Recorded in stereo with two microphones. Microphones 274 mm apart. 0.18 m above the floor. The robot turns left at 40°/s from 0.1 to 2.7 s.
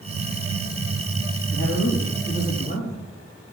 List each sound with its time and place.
1.5 s a man speaking: 75° left, 4.5 m; by 3.1 s 30° left, 4.5 m